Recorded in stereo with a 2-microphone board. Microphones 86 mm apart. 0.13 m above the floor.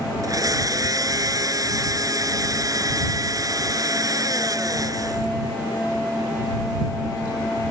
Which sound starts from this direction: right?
A blender, at 0.2 s.